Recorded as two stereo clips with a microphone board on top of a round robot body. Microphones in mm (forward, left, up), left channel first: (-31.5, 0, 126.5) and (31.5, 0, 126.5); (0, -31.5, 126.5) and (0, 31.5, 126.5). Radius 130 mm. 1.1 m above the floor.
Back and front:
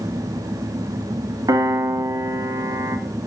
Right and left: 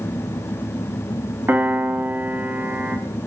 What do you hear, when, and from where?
1.5 s a piano: 30° left, 1.6 m